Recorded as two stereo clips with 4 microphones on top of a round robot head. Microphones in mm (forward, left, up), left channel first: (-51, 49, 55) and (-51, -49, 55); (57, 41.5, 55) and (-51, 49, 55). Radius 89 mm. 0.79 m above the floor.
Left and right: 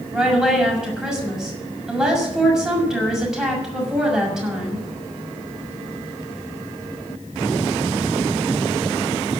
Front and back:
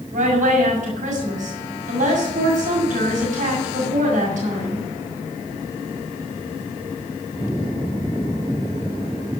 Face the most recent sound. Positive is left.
turn(degrees=-175)